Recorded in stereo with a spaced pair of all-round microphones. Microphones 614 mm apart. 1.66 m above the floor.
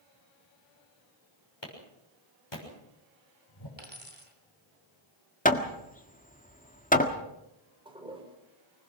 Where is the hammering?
15° left (ahead or behind), 1.7 m.